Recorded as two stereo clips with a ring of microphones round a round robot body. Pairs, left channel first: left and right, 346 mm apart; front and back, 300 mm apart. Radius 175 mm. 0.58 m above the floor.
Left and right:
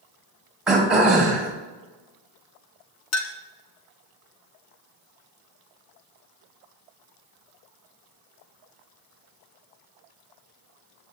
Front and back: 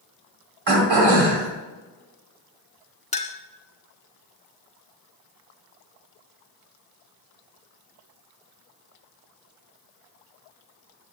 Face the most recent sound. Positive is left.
turn(degrees=60)